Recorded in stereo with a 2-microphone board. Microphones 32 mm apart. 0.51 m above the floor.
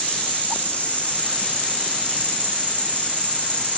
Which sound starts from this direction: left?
An insect, at 0.0 s.